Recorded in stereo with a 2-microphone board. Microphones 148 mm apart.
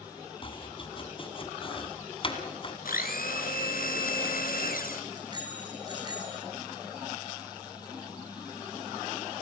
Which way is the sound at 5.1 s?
30° right (ahead or behind).